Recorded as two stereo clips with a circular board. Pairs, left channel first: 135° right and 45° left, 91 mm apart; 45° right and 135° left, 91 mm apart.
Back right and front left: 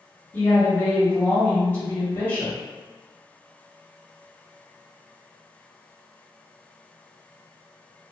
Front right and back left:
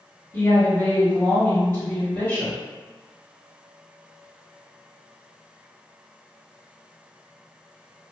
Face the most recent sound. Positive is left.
turn(degrees=-85)